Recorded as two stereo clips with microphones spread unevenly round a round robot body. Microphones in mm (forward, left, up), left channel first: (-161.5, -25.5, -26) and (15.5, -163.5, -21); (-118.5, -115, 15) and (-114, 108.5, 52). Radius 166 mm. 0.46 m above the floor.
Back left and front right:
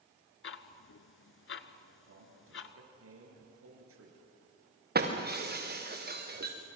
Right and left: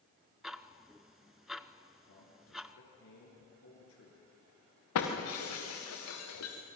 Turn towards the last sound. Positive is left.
turn(degrees=-85)